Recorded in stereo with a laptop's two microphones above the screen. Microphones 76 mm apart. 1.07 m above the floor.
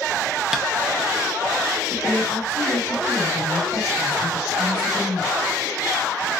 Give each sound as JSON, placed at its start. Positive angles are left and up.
{"t": 0.5, "sound": "tapping", "side_deg": -5, "distance_m": 0.7}
{"t": 1.9, "sound": "a woman speaking", "side_deg": 30, "distance_m": 1.8}